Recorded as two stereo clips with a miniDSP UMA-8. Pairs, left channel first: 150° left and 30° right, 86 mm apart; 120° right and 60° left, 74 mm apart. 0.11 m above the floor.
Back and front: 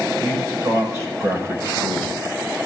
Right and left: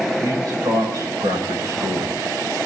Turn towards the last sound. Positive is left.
turn(degrees=25)